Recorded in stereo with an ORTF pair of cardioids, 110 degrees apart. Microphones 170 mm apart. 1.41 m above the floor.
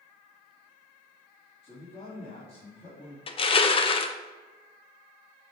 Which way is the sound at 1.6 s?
35° left.